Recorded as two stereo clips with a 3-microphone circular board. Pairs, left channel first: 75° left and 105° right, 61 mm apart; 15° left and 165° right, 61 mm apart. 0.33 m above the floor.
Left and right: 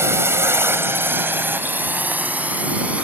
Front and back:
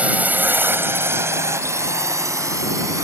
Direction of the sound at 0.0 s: 110° right.